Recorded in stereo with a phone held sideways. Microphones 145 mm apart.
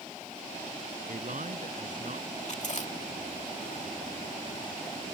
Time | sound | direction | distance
1.1 | a man speaking | 60° right (ahead or behind) | ?
2.5 | chewing | 55° left (ahead or behind) | ?